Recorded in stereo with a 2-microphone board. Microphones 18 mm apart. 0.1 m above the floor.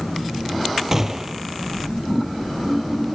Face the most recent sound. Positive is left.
turn(degrees=-25)  # may be behind; listen again after turning